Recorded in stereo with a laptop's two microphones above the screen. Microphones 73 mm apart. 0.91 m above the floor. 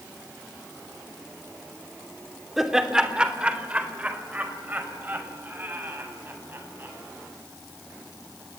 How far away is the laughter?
About 3 m.